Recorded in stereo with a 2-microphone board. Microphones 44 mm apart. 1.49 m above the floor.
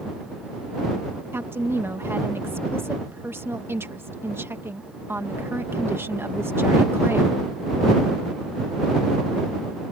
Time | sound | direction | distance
1.3 | a woman speaking | 65° right (ahead or behind) | ?